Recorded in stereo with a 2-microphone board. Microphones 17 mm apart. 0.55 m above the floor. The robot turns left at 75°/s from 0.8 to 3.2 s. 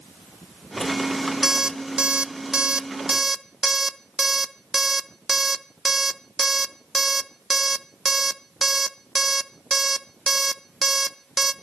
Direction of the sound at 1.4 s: 25° right (ahead or behind).